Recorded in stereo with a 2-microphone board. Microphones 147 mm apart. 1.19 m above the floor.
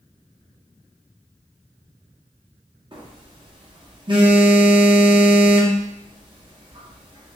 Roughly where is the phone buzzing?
Right.